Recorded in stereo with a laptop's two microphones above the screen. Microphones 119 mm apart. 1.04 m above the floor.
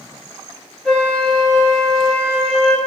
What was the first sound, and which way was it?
A flute, 5° left (ahead or behind).